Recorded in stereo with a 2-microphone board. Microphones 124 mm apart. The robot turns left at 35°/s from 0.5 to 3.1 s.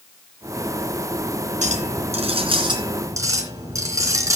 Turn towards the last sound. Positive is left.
turn(degrees=-155)